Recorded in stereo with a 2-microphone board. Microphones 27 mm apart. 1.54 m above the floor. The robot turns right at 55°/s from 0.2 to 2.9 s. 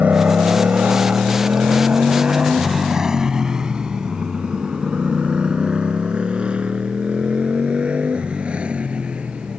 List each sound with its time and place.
0.0 s a motorcycle: 60° right (ahead or behind); by 9.6 s 45° right (ahead or behind)